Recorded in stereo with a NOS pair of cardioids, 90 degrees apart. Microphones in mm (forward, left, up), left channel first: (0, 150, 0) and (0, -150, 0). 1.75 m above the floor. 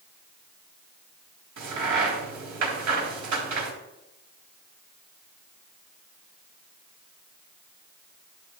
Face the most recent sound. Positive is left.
turn(degrees=-65)